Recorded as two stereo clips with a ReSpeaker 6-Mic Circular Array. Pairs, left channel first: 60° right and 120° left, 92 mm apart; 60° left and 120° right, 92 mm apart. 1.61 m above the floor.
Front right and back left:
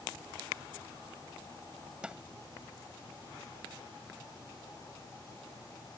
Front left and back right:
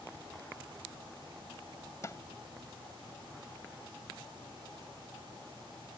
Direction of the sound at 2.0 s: 50° left.